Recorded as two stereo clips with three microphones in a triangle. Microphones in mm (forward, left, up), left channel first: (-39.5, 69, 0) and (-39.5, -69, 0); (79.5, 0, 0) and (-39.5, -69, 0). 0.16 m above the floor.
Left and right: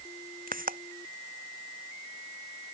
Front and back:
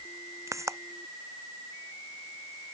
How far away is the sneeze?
No sneeze in this recording.